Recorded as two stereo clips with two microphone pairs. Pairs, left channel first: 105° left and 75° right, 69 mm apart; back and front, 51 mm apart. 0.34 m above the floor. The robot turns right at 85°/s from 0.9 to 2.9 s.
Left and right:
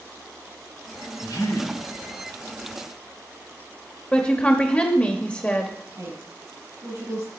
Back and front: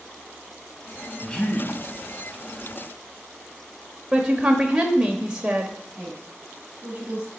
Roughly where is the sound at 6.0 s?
Right.